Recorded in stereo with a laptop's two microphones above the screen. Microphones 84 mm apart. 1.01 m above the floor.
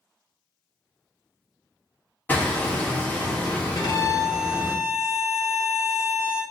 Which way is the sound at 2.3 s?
20° left (ahead or behind).